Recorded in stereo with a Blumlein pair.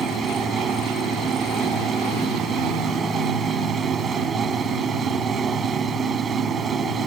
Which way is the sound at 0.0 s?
20° right.